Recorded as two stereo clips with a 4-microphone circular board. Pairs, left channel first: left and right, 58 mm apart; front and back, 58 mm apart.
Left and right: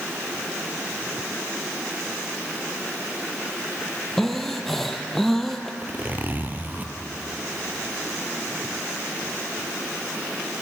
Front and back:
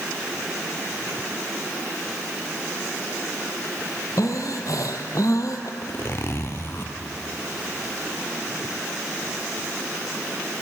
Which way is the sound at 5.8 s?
35° right.